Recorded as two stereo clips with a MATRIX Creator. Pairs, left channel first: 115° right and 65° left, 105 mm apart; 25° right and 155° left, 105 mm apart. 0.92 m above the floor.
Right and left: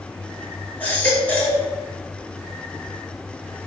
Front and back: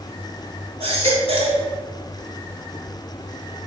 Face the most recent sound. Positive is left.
turn(degrees=170)